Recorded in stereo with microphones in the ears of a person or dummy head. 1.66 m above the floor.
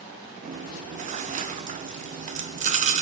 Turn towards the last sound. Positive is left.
turn(degrees=-35)  # may be behind; listen again after turning